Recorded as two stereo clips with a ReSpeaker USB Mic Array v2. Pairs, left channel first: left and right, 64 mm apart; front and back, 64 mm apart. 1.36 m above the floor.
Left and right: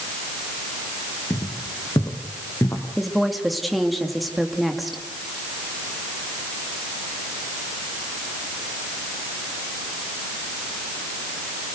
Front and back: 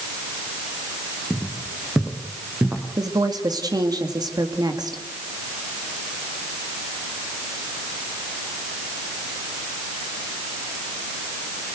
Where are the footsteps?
100° left, 4.5 m; by 2.9 s 125° left, 4.5 m.